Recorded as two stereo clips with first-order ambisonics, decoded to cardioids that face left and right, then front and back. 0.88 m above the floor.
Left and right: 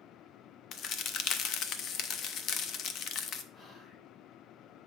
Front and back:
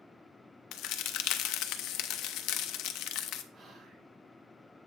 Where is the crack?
40° left, 0.5 m.